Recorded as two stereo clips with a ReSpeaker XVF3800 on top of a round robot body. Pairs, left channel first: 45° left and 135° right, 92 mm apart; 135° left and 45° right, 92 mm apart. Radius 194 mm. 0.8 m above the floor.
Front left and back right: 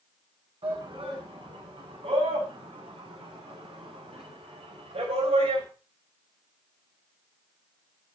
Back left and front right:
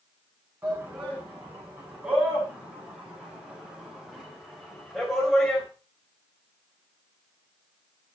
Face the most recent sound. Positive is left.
turn(degrees=-140)